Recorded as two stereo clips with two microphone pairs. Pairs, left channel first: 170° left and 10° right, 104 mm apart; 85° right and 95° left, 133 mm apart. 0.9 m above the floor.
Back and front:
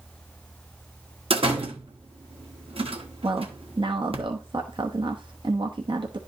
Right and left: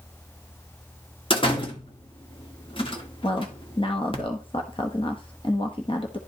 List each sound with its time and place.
1.3 s a door slam: 35° right, 1.4 m
3.2 s a woman speaking: 40° right, 1.0 m